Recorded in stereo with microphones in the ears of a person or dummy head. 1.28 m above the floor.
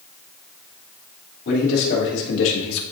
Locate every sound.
1.4 s a man speaking: 55° left (ahead or behind), 3 m; by 2.8 s 85° left, 1.5 m